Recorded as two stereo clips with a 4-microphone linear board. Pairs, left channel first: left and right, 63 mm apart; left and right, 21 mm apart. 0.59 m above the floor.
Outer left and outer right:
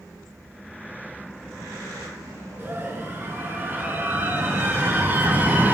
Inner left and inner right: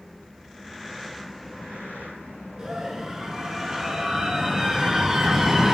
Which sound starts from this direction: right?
A scream, at 2.6 s.